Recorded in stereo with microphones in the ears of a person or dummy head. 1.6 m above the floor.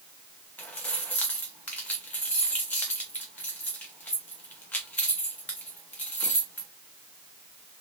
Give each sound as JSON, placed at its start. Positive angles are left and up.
{"t": 0.6, "sound": "keys jangling", "side_deg": 10, "distance_m": 0.6}